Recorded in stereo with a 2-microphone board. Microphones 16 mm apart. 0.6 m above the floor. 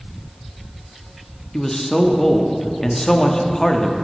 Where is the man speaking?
30° left (ahead or behind), 0.6 m.